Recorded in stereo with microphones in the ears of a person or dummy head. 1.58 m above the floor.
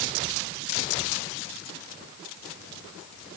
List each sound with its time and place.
Only background noise.